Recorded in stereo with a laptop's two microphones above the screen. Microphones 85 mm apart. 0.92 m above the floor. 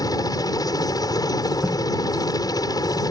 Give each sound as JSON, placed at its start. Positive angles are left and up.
{"t": 0.0, "sound": "a helicopter", "side_deg": 55}
{"t": 1.6, "sound": "tape being pulled", "side_deg": -20}